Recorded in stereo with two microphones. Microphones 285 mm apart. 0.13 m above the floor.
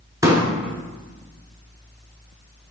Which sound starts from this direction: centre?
A pop, at 0.2 s.